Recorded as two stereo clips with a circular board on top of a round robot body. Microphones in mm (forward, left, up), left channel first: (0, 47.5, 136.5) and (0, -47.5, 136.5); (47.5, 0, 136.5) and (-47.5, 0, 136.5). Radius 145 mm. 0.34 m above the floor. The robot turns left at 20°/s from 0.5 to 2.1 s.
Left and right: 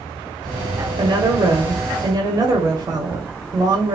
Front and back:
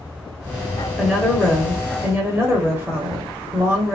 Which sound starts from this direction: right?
A woman speaking, at 1.0 s.